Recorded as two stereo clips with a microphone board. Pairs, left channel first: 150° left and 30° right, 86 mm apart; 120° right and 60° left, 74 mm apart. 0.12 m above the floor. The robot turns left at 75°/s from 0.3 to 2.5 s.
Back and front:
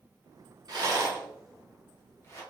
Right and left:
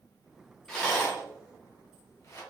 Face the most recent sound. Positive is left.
turn(degrees=-175)